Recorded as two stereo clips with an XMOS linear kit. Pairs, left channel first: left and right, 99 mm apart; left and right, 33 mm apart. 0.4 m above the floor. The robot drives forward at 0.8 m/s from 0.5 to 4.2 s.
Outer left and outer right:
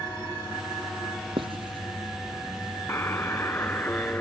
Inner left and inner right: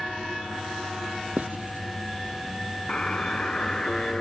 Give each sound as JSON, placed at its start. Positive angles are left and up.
{"t": 1.4, "sound": "writing", "side_deg": -60}
{"t": 2.9, "sound": "a buzzer", "side_deg": 25}